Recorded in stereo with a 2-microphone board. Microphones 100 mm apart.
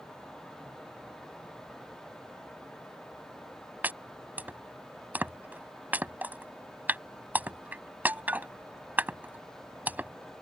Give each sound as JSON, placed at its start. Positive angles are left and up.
{"t": 3.8, "sound": "chopping", "side_deg": -20}